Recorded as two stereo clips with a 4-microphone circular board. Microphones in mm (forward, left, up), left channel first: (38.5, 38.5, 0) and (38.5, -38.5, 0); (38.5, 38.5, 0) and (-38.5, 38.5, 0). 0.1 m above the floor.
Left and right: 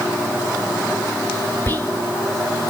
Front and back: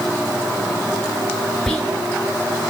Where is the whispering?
80° left, 1.2 m.